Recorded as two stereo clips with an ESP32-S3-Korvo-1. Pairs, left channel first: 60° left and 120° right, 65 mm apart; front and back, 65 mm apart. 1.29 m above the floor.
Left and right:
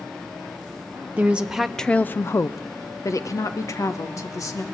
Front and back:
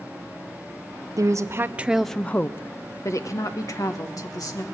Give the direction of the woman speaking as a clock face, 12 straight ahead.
6 o'clock.